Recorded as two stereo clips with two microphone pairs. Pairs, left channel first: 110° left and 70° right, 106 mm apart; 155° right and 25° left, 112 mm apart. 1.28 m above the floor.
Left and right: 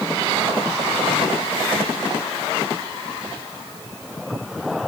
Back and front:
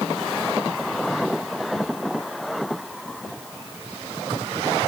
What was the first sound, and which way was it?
Only background noise.